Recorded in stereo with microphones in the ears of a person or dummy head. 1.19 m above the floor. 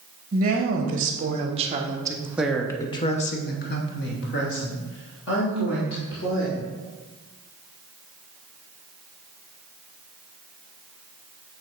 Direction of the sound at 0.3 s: 45° right (ahead or behind).